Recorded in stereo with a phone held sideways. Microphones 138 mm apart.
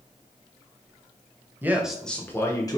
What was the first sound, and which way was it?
A man speaking, 15° right (ahead or behind).